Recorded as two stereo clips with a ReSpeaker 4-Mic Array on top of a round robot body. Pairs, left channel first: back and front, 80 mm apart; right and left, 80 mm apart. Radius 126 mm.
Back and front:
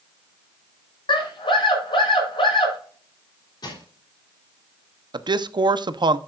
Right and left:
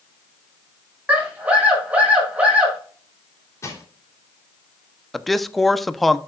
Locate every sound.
1.1 s a scream: 165° left, 6.5 m
3.6 s crushing: 145° right, 3.5 m
5.1 s a man speaking: straight ahead, 0.9 m